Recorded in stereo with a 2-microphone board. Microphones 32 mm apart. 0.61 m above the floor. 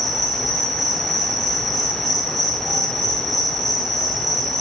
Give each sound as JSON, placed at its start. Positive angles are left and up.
{"t": 0.0, "sound": "an insect", "side_deg": 0, "distance_m": 0.9}